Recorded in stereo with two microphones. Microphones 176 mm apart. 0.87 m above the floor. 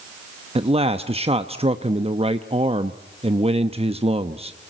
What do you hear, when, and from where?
0.6 s a man speaking: 30° right (ahead or behind), 0.8 m